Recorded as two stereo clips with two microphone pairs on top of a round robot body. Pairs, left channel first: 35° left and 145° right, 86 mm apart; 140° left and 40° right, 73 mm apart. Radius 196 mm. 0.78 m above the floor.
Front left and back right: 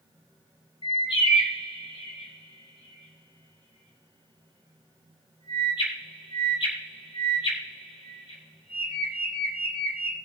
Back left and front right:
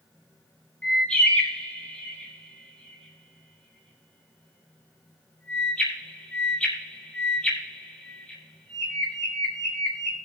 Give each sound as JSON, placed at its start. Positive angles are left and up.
{"t": 0.8, "sound": "a bird", "azimuth_deg": 65, "distance_m": 1.3}